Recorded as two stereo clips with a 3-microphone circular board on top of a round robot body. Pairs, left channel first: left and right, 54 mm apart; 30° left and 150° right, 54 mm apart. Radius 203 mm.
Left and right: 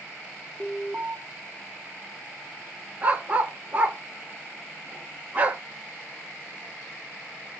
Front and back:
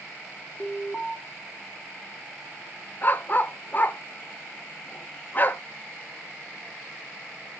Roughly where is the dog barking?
Ahead right.